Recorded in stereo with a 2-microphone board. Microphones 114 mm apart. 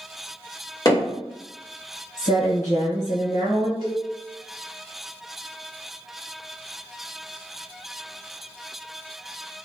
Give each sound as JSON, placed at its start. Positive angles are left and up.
{"t": 0.8, "sound": "hammering", "side_deg": 30, "distance_m": 1.5}
{"t": 2.2, "sound": "a woman speaking", "side_deg": 85, "distance_m": 1.5}
{"t": 3.8, "sound": "a cowbell", "side_deg": -35, "distance_m": 1.2}